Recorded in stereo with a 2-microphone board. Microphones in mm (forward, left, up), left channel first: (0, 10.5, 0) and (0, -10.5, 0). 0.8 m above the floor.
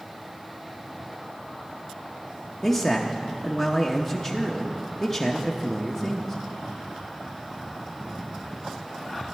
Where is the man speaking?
20° left (ahead or behind), 0.7 m.